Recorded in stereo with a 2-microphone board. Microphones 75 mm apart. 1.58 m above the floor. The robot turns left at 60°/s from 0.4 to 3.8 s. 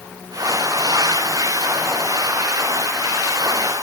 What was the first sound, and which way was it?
Only background noise.